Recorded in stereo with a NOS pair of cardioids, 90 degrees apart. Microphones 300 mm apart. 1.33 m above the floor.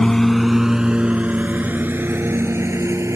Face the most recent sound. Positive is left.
turn(degrees=-10)